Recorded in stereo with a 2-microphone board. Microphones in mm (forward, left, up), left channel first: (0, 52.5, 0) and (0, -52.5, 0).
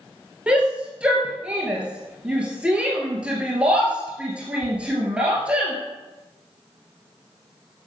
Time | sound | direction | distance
0.5 | a shout | 10° right (ahead or behind) | 2.5 m